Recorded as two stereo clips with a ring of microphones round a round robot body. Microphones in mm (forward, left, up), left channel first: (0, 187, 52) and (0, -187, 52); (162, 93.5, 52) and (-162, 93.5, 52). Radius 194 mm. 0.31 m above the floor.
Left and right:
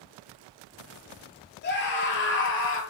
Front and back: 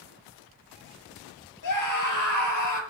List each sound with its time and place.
1.6 s a scream: 25° left, 8 m; by 2.8 s 30° left, 8.5 m